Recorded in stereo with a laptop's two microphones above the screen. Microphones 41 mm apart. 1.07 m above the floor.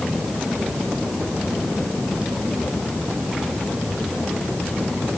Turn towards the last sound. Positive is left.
No sound to turn to.